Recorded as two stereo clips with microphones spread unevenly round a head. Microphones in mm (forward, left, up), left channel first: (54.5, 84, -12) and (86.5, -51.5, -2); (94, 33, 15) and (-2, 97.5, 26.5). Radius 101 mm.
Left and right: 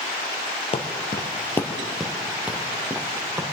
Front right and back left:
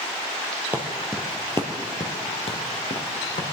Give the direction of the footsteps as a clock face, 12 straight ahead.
9 o'clock.